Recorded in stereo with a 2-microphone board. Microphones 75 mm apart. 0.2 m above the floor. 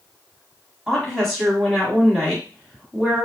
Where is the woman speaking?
Centre (ahead or behind), 1.1 m.